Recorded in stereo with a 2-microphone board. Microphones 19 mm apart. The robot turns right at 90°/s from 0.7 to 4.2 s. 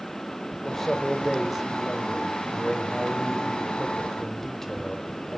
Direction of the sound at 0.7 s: 20° left (ahead or behind).